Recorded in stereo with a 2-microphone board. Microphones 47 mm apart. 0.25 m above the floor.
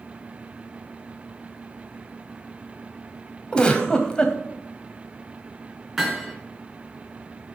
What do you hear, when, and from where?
3.5 s a giggle: 20° left (ahead or behind), 1.4 m
6.0 s hammering: centre (ahead or behind), 3 m